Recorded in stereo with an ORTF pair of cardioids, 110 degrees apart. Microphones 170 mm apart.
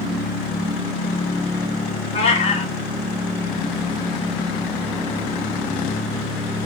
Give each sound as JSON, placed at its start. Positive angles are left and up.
{"t": 2.1, "sound": "a cat meowing", "azimuth_deg": 40, "distance_m": 3.0}